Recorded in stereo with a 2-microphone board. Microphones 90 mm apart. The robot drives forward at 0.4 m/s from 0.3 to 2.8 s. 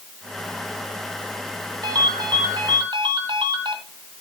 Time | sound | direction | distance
1.8 | a ringtone | 50° right (ahead or behind) | 2.5 m